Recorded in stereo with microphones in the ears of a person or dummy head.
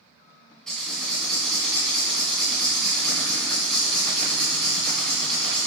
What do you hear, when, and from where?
0.7 s writing: 5° left (ahead or behind), 2 m